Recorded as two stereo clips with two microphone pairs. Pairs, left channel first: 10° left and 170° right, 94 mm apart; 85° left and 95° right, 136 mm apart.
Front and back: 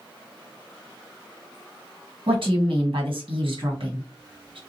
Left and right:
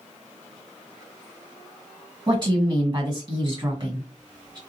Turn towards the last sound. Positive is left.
turn(degrees=-150)